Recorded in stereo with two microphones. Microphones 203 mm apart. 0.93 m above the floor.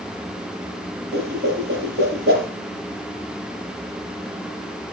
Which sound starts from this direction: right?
A whoosh, at 1.1 s.